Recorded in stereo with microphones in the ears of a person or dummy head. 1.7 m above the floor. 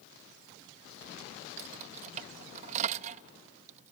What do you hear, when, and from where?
1.6 s keys jangling: 40° right (ahead or behind)